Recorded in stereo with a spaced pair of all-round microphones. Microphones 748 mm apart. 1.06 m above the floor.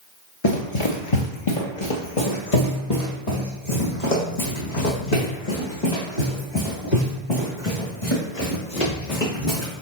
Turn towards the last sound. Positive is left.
turn(degrees=65)  # may be behind; listen again after turning